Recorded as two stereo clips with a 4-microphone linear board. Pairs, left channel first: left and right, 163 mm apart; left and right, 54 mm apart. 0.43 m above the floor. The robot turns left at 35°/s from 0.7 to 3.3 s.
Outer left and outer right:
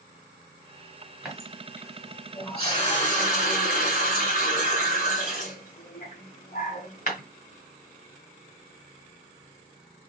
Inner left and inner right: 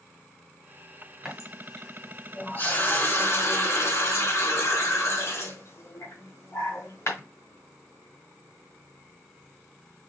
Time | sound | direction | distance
1.2 | a running tap | 175° right | 1.7 m